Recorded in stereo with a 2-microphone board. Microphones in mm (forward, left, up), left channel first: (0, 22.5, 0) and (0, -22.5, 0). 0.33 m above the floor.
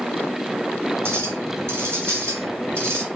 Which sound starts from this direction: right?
A clink, at 1.1 s.